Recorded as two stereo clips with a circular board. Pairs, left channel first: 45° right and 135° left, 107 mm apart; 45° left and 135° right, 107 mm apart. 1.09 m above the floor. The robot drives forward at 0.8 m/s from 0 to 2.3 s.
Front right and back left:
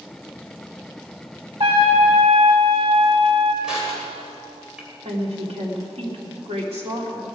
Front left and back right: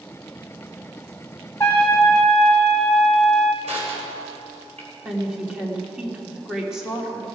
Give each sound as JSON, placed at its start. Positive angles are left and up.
{"t": 1.6, "sound": "a trumpet", "azimuth_deg": 110, "distance_m": 2.0}
{"t": 3.6, "sound": "crushing", "azimuth_deg": -140, "distance_m": 4.0}
{"t": 5.0, "sound": "a woman speaking", "azimuth_deg": 140, "distance_m": 2.5}